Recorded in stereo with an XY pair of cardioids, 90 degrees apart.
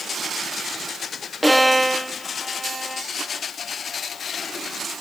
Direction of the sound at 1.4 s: 5° right.